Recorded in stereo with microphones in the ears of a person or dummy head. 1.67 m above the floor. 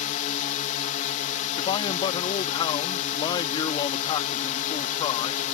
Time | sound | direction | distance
0.0 | a drone | 45° left (ahead or behind) | ?
1.6 | a man speaking | 30° left (ahead or behind) | ?